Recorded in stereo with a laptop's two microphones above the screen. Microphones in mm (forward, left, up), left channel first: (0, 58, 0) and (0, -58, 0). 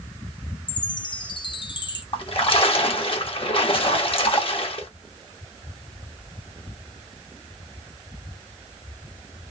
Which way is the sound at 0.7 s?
40° left (ahead or behind).